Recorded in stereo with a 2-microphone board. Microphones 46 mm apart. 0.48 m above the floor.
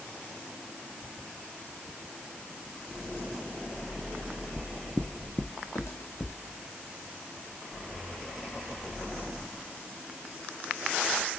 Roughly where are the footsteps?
Centre.